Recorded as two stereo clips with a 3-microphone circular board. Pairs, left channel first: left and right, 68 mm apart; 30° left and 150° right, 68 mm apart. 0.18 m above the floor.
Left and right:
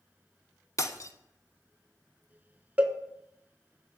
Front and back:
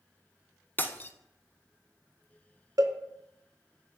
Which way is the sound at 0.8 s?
80° left.